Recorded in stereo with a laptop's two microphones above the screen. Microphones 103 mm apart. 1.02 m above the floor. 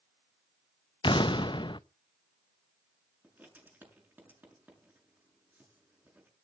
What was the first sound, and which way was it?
An explosion, 50° left (ahead or behind).